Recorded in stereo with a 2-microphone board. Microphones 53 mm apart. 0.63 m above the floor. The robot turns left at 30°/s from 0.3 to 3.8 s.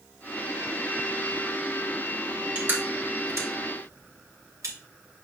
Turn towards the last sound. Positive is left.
turn(degrees=-75)  # may be behind; listen again after turning